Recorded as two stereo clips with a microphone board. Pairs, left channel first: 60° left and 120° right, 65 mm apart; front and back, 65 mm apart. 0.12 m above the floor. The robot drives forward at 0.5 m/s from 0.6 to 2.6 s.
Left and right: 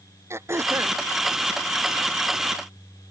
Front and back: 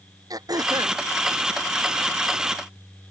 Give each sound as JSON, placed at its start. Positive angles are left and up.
{"t": 0.3, "sound": "throat clearing", "azimuth_deg": -165}